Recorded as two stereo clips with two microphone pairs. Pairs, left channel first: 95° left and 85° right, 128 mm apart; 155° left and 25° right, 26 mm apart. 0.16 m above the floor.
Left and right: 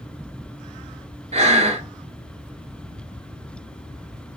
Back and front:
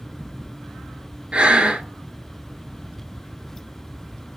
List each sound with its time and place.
1.3 s breathing: 60° right, 0.7 m